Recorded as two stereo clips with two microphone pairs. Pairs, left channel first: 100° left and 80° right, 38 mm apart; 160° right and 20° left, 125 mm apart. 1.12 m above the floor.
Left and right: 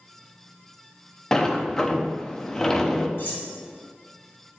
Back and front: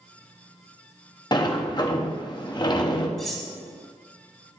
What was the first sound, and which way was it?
A sliding door, 170° left.